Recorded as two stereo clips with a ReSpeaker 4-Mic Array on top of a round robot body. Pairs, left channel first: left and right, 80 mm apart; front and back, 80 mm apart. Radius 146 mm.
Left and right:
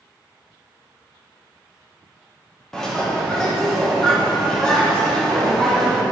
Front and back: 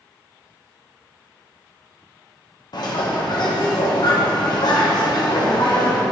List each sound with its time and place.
2.7 s a bird: 10° left, 2 m